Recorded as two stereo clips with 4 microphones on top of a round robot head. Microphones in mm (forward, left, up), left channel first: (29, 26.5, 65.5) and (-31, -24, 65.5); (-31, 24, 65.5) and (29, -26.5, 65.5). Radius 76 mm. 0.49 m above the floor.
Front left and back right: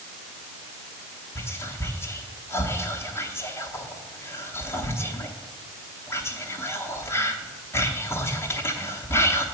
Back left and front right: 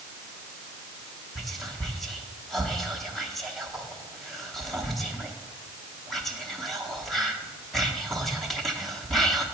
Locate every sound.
1.4 s whispering: 55° left, 1.0 m